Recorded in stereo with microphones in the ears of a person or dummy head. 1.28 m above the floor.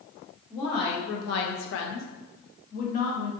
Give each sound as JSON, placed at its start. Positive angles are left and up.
{"t": 0.5, "sound": "a woman speaking", "side_deg": 20, "distance_m": 0.7}